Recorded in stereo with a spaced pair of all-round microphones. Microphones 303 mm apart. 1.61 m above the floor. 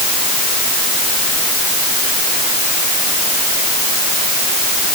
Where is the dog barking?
No dog barking in this recording.